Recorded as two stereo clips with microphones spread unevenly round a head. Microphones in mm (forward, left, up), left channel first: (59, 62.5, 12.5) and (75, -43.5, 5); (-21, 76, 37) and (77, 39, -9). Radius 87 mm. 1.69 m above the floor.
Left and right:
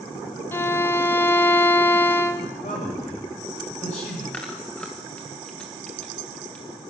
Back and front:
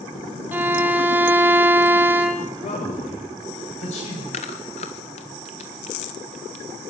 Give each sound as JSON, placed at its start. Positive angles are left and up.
{"t": 0.5, "sound": "a violin", "azimuth_deg": 85, "distance_m": 1.3}
{"t": 2.6, "sound": "a man speaking", "azimuth_deg": 150, "distance_m": 8.5}
{"t": 4.3, "sound": "chewing", "azimuth_deg": 180, "distance_m": 1.4}